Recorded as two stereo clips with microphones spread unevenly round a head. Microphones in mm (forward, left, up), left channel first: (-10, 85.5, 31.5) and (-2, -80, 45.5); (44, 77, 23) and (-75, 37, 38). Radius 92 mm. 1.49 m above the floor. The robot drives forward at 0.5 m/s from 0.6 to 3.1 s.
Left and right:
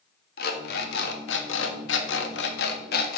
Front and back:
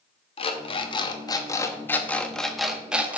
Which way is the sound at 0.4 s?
60° left.